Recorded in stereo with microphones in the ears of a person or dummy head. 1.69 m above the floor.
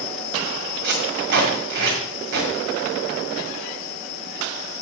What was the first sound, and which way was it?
Tape being pulled, 50° right (ahead or behind).